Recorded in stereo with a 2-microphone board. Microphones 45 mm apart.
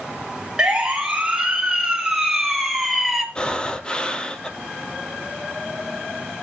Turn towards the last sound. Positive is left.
turn(degrees=20)  # may be behind; listen again after turning